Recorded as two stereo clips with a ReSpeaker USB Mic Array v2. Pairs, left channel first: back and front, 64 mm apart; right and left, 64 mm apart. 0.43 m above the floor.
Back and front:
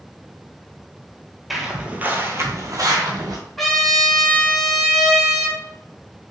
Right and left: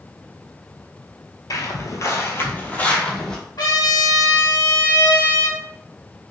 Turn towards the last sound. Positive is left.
turn(degrees=-95)